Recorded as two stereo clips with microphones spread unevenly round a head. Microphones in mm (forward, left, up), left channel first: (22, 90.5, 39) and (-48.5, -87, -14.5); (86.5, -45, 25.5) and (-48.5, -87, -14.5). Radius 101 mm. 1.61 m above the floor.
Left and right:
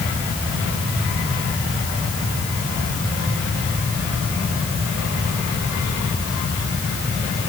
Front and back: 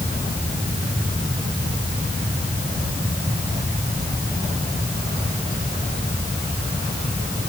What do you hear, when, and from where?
Only background noise.